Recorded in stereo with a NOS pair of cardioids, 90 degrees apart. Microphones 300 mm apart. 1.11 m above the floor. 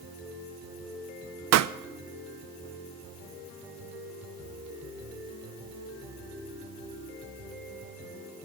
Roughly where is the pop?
Ahead right.